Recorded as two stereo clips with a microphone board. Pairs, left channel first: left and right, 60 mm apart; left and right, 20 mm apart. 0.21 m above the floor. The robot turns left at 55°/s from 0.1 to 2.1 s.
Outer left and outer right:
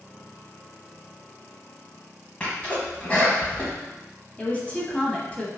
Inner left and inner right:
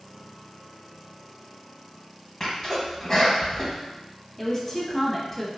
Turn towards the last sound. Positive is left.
turn(degrees=25)  # may be behind; listen again after turning